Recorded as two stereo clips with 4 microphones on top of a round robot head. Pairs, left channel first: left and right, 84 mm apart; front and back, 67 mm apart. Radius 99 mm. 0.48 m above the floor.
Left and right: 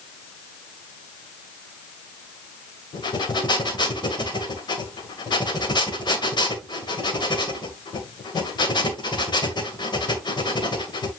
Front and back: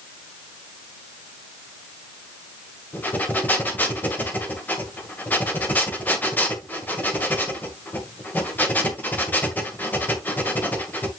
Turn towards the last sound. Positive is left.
turn(degrees=65)